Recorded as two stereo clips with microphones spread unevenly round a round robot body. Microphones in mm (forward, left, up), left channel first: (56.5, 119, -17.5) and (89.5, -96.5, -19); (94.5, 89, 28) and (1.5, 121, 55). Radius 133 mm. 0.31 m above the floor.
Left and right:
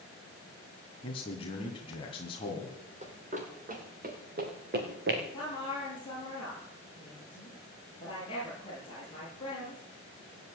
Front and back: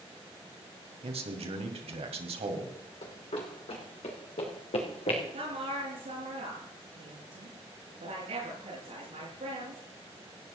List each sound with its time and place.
1.0 s a man speaking: 165° left, 2.5 m
3.0 s running footsteps: 30° right, 6 m; by 5.2 s 50° right, 5 m
5.3 s a woman speaking: 170° left, 7 m